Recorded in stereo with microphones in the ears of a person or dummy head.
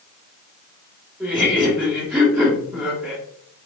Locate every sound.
1.2 s laughter: 10° right (ahead or behind), 1.5 m